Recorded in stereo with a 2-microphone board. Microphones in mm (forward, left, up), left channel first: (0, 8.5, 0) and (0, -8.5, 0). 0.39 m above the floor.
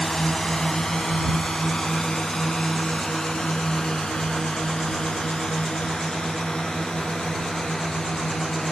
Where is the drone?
30° left (ahead or behind); by 8.7 s 50° left (ahead or behind).